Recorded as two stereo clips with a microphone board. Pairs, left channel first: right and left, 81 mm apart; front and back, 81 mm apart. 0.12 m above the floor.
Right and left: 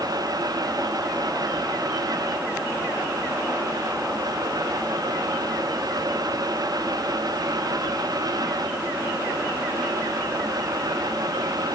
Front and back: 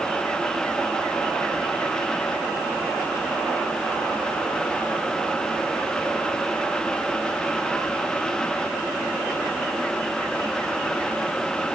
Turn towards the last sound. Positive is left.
No sound to turn to.